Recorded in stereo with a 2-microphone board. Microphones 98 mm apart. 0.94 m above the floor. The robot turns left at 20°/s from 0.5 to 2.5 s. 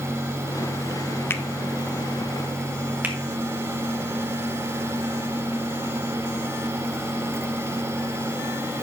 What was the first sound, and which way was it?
A finger snap, 25° left (ahead or behind).